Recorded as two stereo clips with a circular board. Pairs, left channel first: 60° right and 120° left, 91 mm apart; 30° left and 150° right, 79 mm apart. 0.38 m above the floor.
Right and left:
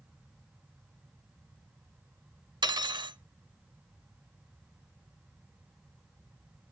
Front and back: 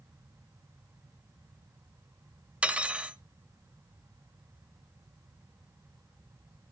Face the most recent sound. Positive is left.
turn(degrees=140)